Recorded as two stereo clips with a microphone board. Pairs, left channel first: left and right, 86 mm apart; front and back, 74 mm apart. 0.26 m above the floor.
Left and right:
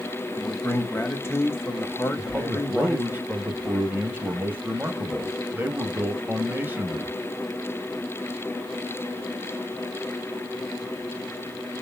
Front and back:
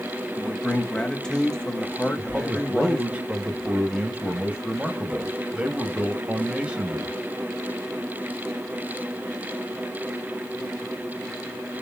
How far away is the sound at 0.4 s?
About 1.1 m.